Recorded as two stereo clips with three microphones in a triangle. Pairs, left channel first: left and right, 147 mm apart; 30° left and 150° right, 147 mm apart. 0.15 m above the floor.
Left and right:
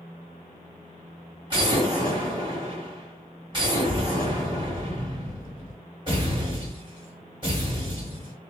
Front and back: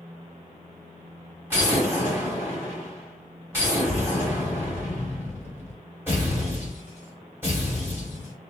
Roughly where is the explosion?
Right.